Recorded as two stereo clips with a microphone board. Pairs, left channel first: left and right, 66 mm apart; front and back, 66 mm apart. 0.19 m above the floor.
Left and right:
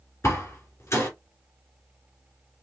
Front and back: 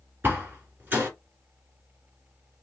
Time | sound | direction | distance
0.2 | a door slam | 125° left | 1.8 m